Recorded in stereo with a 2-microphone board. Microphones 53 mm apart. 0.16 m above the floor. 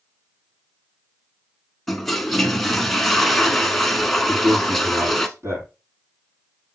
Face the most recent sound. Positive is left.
turn(degrees=-55)  # may be behind; listen again after turning